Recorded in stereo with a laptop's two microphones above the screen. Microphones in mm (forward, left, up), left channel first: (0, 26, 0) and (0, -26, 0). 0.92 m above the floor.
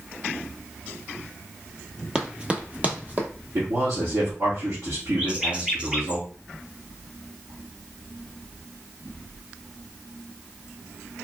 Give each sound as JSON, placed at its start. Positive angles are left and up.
{"t": 2.1, "sound": "running footsteps", "side_deg": -15, "distance_m": 0.9}
{"t": 3.5, "sound": "a man speaking", "side_deg": -70, "distance_m": 2.5}
{"t": 5.2, "sound": "a bird", "side_deg": -20, "distance_m": 0.8}